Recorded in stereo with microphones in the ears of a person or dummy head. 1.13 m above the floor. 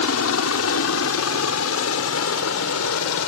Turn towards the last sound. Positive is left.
turn(degrees=75)  # may be behind; listen again after turning